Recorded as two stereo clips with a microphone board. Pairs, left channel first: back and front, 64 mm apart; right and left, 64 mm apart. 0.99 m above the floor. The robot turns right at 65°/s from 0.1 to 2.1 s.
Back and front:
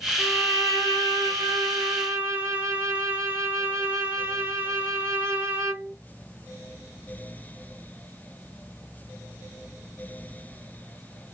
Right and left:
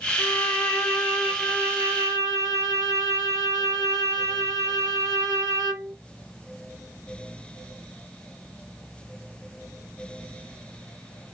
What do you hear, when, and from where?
0.2 s a violin: 60° right, 1.3 m; by 5.9 s 65° left, 1.3 m